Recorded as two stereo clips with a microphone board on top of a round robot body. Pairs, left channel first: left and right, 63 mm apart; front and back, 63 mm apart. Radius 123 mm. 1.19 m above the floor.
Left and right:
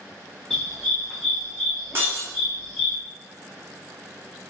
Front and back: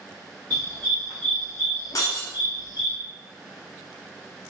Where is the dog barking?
170° left, 0.9 m; by 3.0 s 5° right, 1.4 m.